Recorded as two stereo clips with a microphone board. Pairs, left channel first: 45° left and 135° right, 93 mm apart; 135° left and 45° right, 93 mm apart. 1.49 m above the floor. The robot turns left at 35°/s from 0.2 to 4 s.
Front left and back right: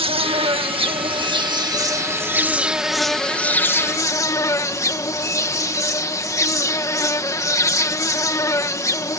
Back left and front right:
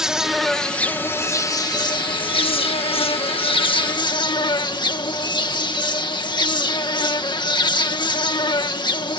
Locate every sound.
0.0 s an insect: 130° right; by 9.2 s 100° left